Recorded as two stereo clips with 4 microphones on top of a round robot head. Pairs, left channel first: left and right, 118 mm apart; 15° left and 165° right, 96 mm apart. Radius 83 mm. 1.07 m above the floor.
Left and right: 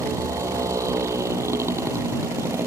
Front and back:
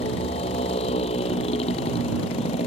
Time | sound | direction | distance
0.0 | a motorcycle | 25° right | ?